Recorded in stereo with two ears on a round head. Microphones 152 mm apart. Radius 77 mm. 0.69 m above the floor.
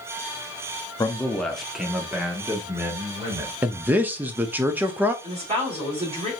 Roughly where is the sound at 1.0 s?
Centre.